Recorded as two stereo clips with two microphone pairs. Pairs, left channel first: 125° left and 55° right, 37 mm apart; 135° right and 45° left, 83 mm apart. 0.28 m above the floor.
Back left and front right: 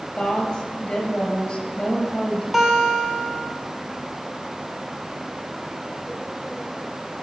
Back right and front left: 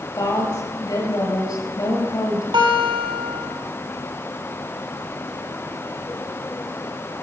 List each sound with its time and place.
0.2 s a woman speaking: 170° right, 5.5 m
2.5 s a guitar: 30° left, 2.0 m